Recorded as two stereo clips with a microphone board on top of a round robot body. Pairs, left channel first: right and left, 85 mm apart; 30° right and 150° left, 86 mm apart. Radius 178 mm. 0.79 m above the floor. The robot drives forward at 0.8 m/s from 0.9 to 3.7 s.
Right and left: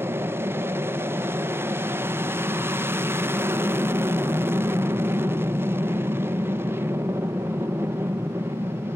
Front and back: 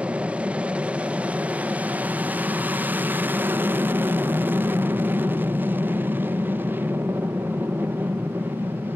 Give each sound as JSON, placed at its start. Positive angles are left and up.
{"t": 0.0, "sound": "an aircraft", "azimuth_deg": 90}